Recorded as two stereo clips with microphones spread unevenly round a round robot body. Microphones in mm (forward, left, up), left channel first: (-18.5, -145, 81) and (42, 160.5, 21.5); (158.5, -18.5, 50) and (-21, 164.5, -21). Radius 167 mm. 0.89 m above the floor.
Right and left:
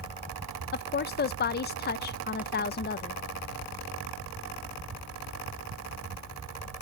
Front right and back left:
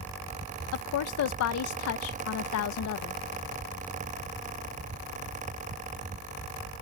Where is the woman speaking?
40° right, 0.6 m.